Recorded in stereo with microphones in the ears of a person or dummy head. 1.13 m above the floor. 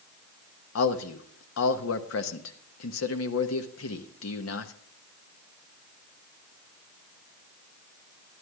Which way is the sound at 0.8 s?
80° left.